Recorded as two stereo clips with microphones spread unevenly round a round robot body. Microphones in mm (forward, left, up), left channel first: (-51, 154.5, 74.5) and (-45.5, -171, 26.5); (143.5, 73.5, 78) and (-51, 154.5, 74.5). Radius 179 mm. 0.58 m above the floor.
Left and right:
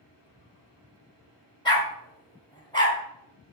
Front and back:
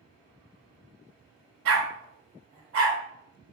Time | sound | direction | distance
1.6 | a dog barking | 170° left | 1.6 m